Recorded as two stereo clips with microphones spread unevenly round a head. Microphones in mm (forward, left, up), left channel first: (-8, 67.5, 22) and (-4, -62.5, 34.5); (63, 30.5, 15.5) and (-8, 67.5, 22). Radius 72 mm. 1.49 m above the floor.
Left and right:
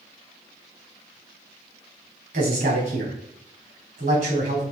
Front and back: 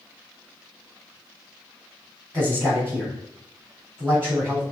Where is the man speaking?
105° right, 4 m.